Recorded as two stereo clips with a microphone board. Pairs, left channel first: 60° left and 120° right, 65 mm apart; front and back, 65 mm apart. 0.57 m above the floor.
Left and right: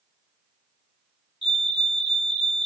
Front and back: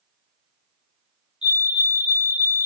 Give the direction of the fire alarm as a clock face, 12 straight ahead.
7 o'clock.